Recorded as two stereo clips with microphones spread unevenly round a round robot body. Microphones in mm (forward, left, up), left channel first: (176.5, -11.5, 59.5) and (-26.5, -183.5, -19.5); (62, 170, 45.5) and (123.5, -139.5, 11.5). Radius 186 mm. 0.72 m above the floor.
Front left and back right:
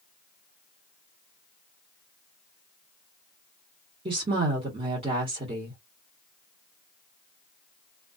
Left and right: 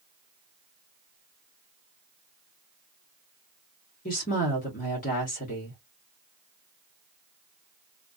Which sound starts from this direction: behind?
A woman speaking, at 4.0 s.